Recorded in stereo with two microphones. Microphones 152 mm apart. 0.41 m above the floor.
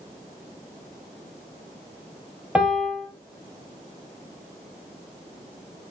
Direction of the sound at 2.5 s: 10° right (ahead or behind).